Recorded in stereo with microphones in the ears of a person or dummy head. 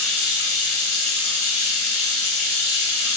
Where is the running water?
55° right (ahead or behind), 1.9 m.